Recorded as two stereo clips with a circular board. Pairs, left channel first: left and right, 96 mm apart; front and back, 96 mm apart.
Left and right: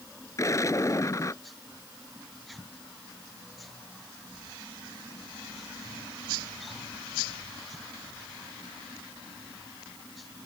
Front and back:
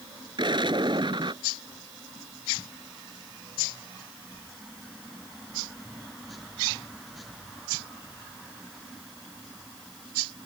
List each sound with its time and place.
0.4 s an explosion: 145° left